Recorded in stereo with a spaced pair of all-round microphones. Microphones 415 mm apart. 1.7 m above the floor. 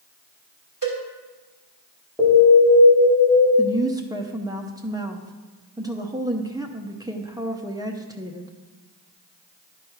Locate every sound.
0.8 s a cowbell: 50° right (ahead or behind), 2.5 m
2.2 s an alarm: centre (ahead or behind), 3.5 m
3.6 s a woman speaking: 10° right (ahead or behind), 0.6 m